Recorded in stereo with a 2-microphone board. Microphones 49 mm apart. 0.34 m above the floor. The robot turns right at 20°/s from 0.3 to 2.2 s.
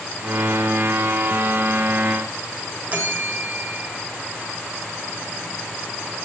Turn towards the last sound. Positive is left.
turn(degrees=-30)  # may be behind; listen again after turning